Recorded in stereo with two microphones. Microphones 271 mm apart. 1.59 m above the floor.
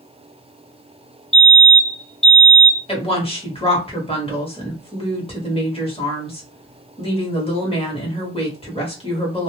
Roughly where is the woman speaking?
Left.